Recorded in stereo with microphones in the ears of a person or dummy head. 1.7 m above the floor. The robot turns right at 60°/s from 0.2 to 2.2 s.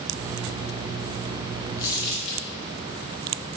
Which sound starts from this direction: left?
Crumpling, at 1.8 s.